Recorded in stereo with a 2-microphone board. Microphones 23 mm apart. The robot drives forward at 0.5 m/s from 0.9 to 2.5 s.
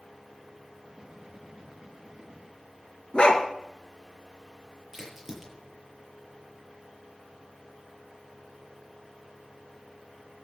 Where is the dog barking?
45° left (ahead or behind), 2.5 m.